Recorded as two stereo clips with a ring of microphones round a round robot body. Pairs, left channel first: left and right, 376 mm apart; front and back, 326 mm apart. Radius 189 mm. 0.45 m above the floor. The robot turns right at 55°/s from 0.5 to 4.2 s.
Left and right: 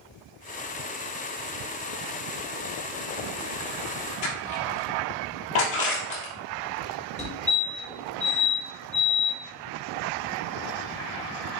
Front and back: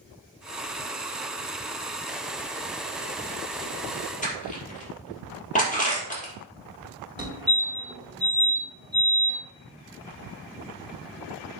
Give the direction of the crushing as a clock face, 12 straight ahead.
10 o'clock.